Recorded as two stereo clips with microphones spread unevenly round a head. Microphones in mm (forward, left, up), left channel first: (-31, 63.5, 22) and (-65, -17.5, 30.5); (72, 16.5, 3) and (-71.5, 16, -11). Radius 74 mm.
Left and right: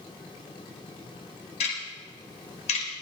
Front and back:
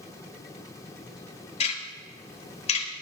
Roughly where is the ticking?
Ahead left.